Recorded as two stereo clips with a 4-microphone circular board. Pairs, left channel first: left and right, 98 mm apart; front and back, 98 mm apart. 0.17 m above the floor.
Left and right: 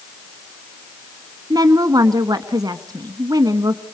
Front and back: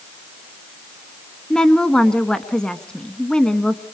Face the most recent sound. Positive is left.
turn(degrees=-80)